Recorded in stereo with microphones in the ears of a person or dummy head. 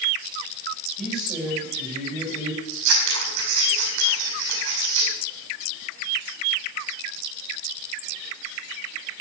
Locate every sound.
1.0 s a man speaking: 5° right (ahead or behind), 8 m
2.7 s scissors: 75° right (ahead or behind), 5 m